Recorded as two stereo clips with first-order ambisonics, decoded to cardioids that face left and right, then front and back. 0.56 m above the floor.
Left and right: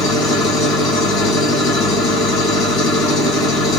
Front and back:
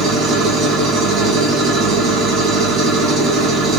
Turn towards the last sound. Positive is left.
turn(degrees=135)